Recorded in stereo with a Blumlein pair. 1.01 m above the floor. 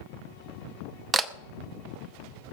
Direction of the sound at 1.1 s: 15° right.